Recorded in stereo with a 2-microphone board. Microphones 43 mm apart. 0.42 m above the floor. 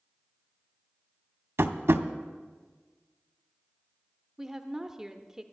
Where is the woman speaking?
10° right (ahead or behind), 0.8 m.